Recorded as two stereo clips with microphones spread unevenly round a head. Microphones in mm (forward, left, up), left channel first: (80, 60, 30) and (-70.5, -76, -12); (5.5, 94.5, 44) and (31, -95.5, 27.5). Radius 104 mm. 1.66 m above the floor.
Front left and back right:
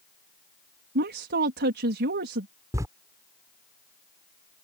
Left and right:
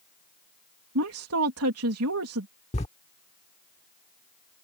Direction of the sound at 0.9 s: 95° right.